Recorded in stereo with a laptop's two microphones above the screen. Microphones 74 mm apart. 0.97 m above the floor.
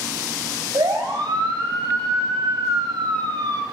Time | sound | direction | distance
0.7 | a siren | 70° right (ahead or behind) | 6.5 m